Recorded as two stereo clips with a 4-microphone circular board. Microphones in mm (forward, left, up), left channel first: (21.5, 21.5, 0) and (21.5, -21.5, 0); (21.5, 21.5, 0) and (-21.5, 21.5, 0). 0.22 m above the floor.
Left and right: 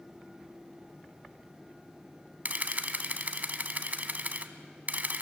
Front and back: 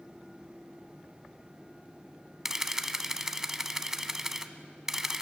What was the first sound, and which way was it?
A camera shutter, 105° right.